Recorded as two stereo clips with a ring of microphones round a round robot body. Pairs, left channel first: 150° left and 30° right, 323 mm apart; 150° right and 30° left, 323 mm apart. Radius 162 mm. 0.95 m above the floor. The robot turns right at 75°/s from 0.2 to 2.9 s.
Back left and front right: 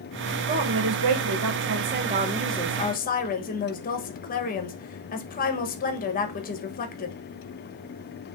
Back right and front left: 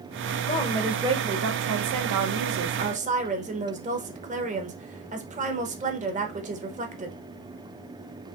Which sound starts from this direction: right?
A woman speaking, at 0.5 s.